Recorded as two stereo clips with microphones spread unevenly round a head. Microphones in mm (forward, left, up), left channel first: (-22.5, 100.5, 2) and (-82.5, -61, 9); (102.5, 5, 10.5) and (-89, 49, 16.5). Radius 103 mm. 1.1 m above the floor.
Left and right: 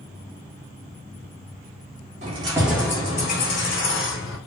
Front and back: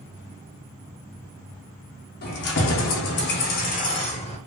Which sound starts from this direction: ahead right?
Keys jangling, at 2.2 s.